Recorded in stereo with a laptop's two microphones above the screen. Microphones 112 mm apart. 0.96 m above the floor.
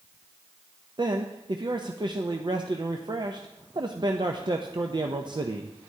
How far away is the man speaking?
About 0.5 m.